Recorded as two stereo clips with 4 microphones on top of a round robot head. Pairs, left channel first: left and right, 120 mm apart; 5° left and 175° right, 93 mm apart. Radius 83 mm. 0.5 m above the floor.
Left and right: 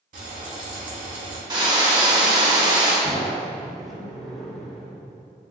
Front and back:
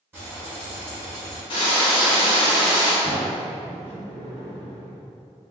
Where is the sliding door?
Straight ahead, 0.9 m.